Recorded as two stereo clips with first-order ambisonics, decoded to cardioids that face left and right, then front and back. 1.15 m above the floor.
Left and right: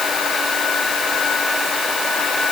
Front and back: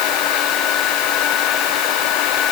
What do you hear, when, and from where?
Only background noise.